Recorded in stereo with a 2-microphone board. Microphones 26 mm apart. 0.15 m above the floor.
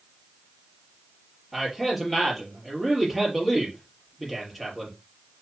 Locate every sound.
1.5 s a man speaking: 5° right (ahead or behind), 4.5 m